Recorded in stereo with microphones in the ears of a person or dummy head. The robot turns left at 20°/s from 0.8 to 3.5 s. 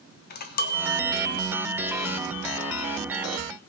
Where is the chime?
130° left, 0.8 m; by 3.4 s 75° left, 0.8 m.